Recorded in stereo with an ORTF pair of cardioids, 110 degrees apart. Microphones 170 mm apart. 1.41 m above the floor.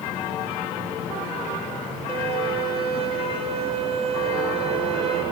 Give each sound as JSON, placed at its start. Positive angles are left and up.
{"t": 2.1, "sound": "a violin", "azimuth_deg": -40, "distance_m": 3.5}